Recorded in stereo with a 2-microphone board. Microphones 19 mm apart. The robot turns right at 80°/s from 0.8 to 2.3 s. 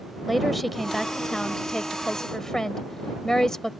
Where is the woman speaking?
Straight ahead; by 3.7 s 120° left.